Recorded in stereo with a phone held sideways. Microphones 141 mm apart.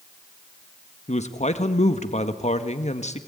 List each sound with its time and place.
1.1 s a man speaking: 55° left (ahead or behind), 1.5 m